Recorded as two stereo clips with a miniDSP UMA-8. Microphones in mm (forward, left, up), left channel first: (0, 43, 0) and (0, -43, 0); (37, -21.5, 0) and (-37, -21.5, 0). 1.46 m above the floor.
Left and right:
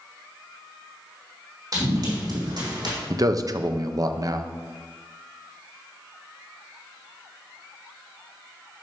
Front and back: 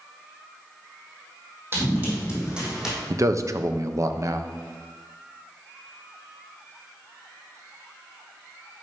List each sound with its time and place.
1.7 s running footsteps: 125° right, 3 m; by 3.0 s 95° right, 3 m
3.1 s a man speaking: 135° right, 0.6 m